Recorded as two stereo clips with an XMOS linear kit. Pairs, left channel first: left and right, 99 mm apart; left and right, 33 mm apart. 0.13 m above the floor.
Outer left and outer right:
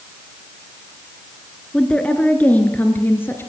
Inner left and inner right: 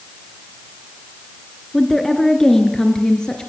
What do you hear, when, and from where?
1.7 s a woman speaking: 10° left (ahead or behind), 1.8 m; by 3.5 s 25° left (ahead or behind), 2.5 m